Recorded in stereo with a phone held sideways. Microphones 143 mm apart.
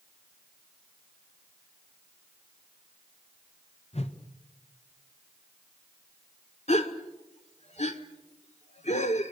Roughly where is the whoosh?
Left.